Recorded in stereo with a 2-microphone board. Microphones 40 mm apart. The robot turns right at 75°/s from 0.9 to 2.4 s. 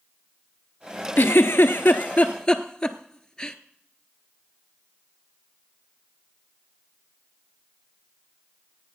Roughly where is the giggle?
Left.